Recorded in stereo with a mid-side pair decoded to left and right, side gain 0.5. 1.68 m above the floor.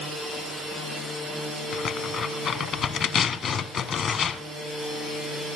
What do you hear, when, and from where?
1.7 s tearing paper: 50° left, 1.2 m